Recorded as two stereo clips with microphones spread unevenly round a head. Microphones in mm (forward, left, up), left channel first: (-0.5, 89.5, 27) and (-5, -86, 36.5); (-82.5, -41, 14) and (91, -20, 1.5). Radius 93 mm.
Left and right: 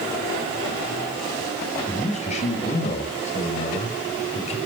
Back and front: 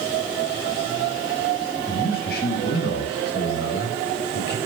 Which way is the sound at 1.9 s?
145° left.